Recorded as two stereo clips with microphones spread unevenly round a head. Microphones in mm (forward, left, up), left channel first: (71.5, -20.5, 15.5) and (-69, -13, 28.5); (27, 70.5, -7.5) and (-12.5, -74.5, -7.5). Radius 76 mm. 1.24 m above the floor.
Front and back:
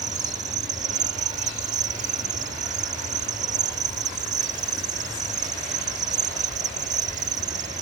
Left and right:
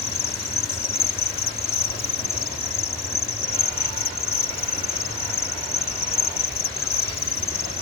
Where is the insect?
130° left.